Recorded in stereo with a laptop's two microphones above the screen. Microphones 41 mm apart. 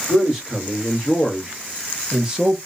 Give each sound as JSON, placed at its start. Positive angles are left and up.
{"t": 0.1, "sound": "a man speaking", "side_deg": -10, "distance_m": 1.4}